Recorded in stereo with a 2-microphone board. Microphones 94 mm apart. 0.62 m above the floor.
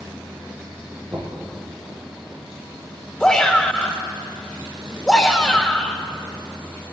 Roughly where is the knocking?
Right.